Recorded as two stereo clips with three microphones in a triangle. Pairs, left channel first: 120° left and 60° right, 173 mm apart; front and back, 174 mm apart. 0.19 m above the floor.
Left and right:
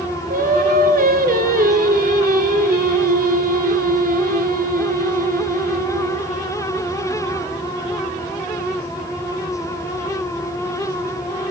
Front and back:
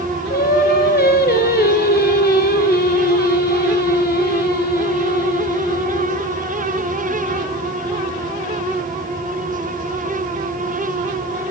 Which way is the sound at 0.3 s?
25° right.